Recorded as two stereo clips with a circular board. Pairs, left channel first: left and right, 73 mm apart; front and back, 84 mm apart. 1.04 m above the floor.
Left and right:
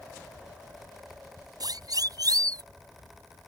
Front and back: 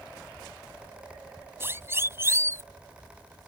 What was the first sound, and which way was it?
A siren, 120° right.